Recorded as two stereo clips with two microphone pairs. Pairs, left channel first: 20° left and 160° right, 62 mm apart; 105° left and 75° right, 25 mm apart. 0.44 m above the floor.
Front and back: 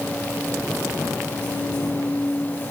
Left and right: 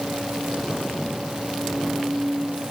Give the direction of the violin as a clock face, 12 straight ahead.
I don't hear a violin.